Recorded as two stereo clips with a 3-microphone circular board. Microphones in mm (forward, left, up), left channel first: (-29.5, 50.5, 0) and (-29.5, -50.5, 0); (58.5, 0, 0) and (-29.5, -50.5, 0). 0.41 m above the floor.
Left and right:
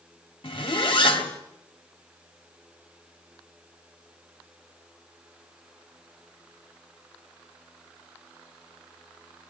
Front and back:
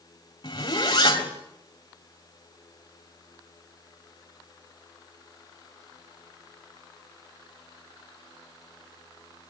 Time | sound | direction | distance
0.4 | a zipper | 70° left | 2.5 m